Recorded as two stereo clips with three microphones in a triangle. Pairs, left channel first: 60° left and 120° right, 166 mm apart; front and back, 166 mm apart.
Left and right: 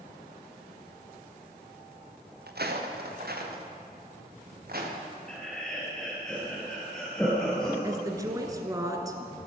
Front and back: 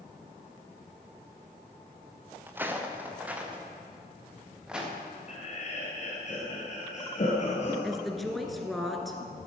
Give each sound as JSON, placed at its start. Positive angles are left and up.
{"t": 2.5, "sound": "footsteps", "azimuth_deg": -105, "distance_m": 1.7}
{"t": 5.3, "sound": "laughter", "azimuth_deg": -25, "distance_m": 2.5}
{"t": 7.8, "sound": "a woman speaking", "azimuth_deg": -90, "distance_m": 1.2}